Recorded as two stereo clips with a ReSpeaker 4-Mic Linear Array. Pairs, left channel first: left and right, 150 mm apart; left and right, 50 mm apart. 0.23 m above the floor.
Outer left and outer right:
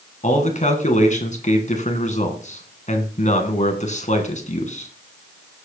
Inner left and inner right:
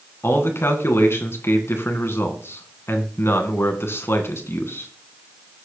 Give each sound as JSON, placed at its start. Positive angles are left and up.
{"t": 0.2, "sound": "a man speaking", "side_deg": 55, "distance_m": 2.5}